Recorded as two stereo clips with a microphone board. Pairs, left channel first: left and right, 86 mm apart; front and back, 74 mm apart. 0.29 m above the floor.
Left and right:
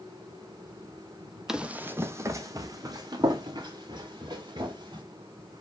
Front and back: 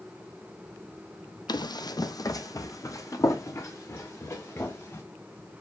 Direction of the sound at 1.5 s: 5° right.